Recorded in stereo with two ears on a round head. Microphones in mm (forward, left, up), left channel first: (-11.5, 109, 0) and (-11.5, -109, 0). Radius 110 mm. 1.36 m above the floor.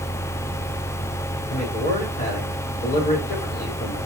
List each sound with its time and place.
1.5 s a man speaking: 35° left (ahead or behind), 4.5 m